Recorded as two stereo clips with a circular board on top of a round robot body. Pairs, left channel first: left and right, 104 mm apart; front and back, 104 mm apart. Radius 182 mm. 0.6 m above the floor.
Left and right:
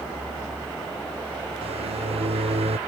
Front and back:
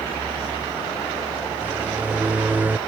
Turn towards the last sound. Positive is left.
turn(degrees=-105)